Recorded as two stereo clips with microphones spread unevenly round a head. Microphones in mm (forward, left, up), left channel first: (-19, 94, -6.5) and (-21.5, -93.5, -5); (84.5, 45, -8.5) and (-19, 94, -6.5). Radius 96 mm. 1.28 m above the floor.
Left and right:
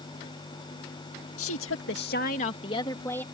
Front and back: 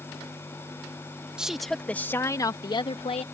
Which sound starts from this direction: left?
A woman speaking, at 1.4 s.